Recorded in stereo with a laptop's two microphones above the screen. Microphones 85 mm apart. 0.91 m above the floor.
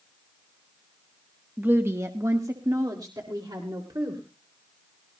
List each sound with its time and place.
1.6 s a woman speaking: 20° right (ahead or behind), 1.0 m; by 4.2 s 55° right (ahead or behind), 3 m